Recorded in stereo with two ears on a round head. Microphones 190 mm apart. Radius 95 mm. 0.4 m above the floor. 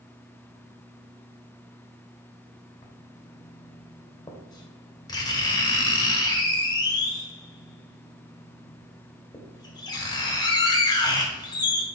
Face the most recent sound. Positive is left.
turn(degrees=20)  # may be behind; listen again after turning